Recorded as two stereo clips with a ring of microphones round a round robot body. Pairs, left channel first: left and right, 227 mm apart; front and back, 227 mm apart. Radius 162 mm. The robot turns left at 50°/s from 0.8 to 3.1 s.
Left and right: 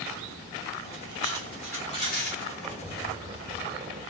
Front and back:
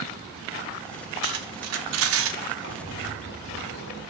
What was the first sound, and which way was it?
Cutlery clinking, 160° right.